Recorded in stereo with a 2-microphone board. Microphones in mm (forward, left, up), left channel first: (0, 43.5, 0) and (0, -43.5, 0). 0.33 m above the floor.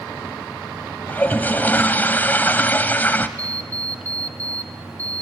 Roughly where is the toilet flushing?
Left.